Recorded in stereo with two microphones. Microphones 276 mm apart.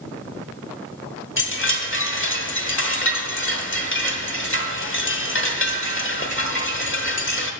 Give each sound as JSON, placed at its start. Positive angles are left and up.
{"t": 1.4, "sound": "a chime", "side_deg": 45, "distance_m": 1.1}